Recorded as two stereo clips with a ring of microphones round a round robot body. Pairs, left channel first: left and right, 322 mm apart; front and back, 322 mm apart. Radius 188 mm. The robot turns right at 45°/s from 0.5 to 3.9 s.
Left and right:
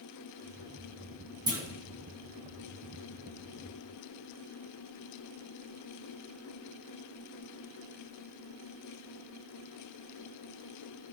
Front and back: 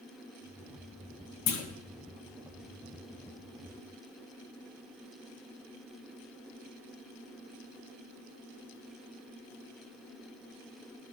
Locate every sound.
1.5 s a clunk: 15° right, 1.2 m; by 1.6 s 5° right, 1.2 m